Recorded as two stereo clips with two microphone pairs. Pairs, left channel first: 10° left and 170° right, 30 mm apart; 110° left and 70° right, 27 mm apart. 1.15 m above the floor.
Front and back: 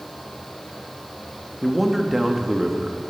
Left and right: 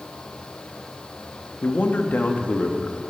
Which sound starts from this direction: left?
A man speaking, at 1.6 s.